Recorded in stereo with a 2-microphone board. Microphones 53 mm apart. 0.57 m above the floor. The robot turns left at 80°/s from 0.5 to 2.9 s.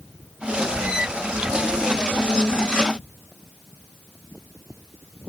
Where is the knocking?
I don't hear knocking.